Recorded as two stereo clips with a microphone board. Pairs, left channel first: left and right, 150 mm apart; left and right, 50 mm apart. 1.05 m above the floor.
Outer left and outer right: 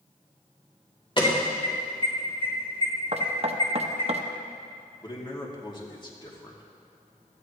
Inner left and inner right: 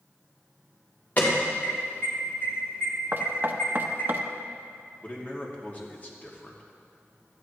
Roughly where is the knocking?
Right.